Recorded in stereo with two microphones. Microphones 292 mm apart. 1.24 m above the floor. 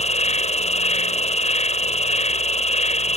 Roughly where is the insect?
Left.